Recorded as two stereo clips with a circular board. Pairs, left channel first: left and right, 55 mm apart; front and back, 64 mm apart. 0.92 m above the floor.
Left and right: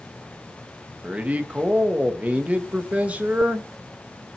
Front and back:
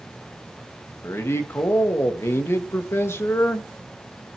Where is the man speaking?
30° right, 1.4 m.